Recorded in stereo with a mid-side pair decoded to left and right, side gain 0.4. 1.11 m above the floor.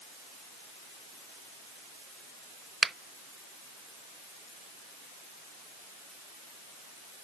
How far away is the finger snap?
About 0.7 m.